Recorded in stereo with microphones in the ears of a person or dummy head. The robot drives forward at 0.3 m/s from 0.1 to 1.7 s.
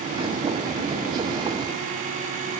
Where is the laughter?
I don't hear laughter.